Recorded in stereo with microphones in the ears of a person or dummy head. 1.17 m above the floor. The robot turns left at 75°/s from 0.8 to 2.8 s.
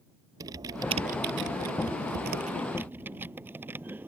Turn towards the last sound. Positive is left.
turn(degrees=-10)  # may be behind; listen again after turning